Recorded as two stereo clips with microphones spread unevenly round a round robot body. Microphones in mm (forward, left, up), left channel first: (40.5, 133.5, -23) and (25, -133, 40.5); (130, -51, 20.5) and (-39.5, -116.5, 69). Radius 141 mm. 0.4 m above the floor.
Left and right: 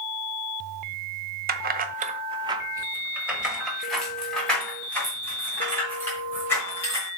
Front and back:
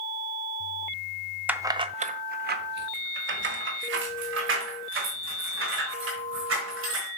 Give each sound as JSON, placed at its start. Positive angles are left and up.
{"t": 1.5, "sound": "keys jangling", "azimuth_deg": -55, "distance_m": 0.7}